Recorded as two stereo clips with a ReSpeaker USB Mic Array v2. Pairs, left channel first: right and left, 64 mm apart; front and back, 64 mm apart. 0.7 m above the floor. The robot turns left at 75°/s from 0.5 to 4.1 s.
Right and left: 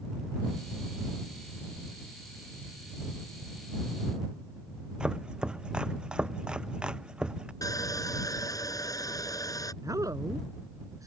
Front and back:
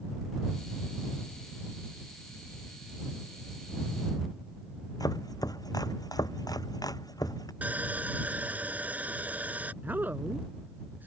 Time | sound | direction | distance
5.0 | chopping | 15° left | ?
7.6 | sawing | 115° right | ?
9.8 | a woman speaking | 115° left | ?